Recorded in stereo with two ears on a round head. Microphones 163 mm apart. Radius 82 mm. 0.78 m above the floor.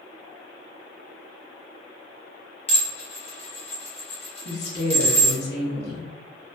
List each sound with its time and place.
2.7 s dishes clattering: 35° left (ahead or behind), 1.0 m
4.5 s a woman speaking: 60° left (ahead or behind), 1.1 m